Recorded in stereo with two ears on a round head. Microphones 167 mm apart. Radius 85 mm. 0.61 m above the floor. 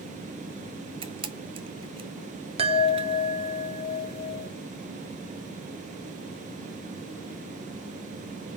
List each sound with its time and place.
1.0 s a camera shutter: 30° right (ahead or behind), 1.3 m
2.6 s a chime: 35° right (ahead or behind), 1.4 m